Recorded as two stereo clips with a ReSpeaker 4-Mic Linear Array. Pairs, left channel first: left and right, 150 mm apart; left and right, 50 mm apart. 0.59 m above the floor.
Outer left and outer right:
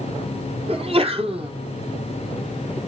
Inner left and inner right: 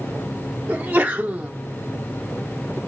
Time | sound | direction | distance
0.7 | a sneeze | 40° right (ahead or behind) | 1.4 m